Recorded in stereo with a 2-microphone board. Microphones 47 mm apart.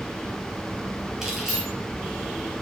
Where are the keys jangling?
10° right (ahead or behind), 2.5 m.